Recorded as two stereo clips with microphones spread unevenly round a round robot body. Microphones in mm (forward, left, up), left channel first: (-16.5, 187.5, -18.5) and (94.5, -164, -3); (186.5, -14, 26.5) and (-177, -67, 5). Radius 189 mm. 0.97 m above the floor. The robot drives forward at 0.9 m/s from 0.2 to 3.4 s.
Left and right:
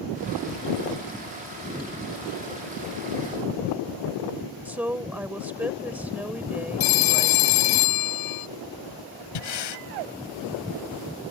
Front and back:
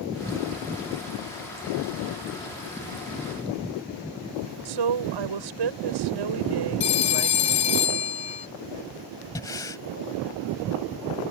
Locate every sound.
4.7 s a woman speaking: 160° right
6.8 s a phone ringing: 80° left
9.3 s breathing: 90° left